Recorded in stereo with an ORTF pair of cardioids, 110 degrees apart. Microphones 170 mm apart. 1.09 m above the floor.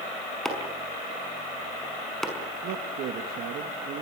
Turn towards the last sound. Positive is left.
turn(degrees=-70)